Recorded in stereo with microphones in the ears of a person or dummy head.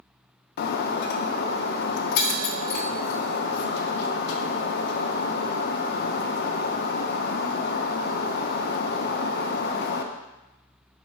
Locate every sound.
0.6 s breaking glass: 55° left (ahead or behind), 0.7 m